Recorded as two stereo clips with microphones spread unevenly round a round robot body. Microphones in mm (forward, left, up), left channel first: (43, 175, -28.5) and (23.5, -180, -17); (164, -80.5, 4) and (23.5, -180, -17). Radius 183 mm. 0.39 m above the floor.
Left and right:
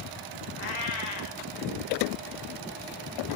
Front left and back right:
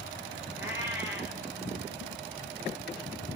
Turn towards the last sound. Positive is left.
turn(degrees=100)